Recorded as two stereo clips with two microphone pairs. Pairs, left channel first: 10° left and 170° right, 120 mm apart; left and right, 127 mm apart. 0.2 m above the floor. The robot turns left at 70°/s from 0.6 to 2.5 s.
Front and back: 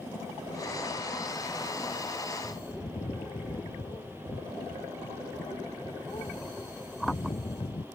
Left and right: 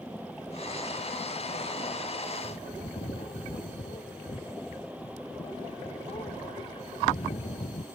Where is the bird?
60° left; by 7.8 s 55° left.